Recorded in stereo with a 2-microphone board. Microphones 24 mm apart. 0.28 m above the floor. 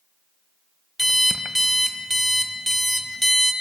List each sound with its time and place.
1.0 s an alarm clock: 5° left (ahead or behind), 0.6 m